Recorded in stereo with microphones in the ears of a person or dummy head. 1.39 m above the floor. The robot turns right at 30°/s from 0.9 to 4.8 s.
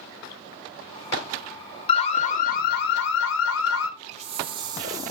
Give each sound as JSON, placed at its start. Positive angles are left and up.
{"t": 1.9, "sound": "an alarm", "azimuth_deg": 30, "distance_m": 1.0}
{"t": 4.1, "sound": "a hiss", "side_deg": -35, "distance_m": 0.6}